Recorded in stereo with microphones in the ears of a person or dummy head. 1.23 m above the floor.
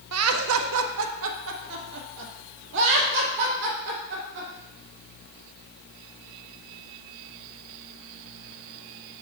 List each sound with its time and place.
0.1 s laughter: 85° right, 0.6 m; by 4.5 s 65° right (ahead or behind), 3 m